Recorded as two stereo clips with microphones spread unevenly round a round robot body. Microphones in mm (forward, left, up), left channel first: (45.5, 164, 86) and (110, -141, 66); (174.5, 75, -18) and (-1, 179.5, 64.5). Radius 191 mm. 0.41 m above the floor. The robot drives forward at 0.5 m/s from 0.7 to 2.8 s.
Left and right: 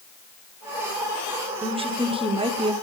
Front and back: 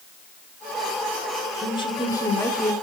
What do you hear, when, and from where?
1.6 s a woman speaking: 15° right, 1.5 m; by 2.7 s 30° right, 1.2 m